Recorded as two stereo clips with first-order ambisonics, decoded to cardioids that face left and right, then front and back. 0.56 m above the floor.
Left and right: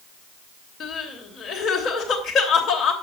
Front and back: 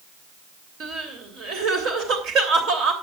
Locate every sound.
0.8 s crying: 145° left, 3 m